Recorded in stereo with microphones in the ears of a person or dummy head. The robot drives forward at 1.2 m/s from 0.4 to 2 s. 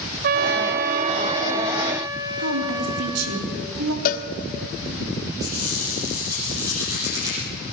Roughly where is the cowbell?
Left.